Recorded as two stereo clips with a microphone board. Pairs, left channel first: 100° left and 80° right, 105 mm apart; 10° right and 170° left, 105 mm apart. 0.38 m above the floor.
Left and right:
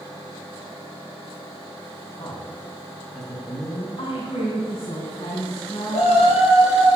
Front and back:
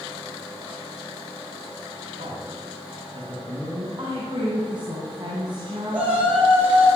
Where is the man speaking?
140° left, 3 m.